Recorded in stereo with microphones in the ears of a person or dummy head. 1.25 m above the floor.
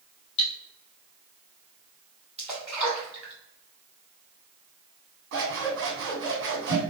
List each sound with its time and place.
0.4 s cutlery clinking: 65° left (ahead or behind), 1.9 m
2.4 s a splash: 10° right (ahead or behind), 1.8 m
5.3 s scissors: 65° right (ahead or behind), 1.8 m